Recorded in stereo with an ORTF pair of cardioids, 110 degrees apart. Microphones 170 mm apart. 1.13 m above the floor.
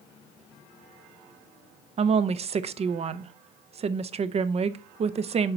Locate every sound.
2.0 s a woman speaking: 35° right, 0.6 m